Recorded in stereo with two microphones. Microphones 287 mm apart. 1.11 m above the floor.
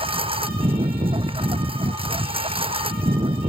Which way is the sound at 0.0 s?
20° right (ahead or behind).